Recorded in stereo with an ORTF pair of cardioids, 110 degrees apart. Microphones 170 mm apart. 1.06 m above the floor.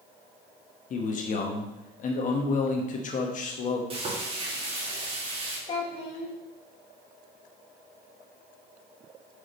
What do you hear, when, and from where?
0.9 s a man speaking: 50° left, 1.2 m
3.9 s frying: 35° right, 2.5 m
5.7 s a child speaking: 35° left, 1.3 m